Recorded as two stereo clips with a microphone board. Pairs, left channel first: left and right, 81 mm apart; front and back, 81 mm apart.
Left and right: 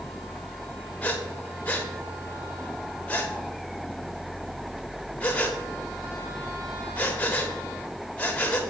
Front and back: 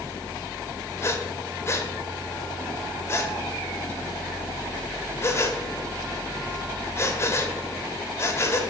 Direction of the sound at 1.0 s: 30° left.